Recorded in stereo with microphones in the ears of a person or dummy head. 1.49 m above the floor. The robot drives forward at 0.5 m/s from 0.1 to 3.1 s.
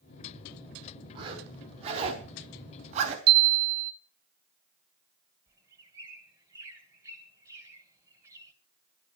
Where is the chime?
50° right (ahead or behind), 0.5 m.